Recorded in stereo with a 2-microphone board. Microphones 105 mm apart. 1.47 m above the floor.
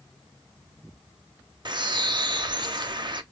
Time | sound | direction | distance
1.6 | a bird | 45° right (ahead or behind) | 0.6 m